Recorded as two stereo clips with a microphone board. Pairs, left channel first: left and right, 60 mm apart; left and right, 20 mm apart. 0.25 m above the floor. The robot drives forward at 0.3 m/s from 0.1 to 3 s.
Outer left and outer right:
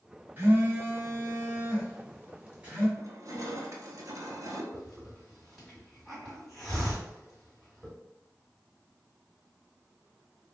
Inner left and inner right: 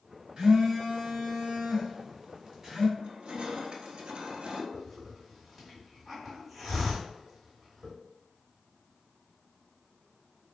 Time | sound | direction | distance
0.4 | a phone buzzing | 30° right (ahead or behind) | 1.0 m
3.0 | crushing | 55° right (ahead or behind) | 0.9 m
4.7 | a hiss | 5° left (ahead or behind) | 1.8 m